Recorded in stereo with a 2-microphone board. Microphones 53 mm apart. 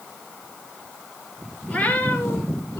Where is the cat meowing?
25° left (ahead or behind), 2.5 m; by 2.8 s 60° left (ahead or behind), 1.5 m.